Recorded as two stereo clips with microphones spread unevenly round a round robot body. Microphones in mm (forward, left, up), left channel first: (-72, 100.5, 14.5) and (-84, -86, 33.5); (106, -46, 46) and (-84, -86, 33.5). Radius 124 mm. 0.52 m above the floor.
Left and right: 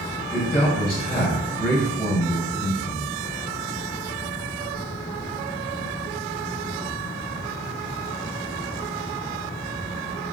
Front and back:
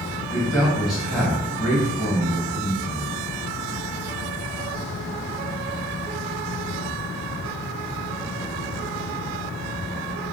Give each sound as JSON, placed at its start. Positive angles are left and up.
{"t": 0.3, "sound": "a man speaking", "azimuth_deg": 110, "distance_m": 0.8}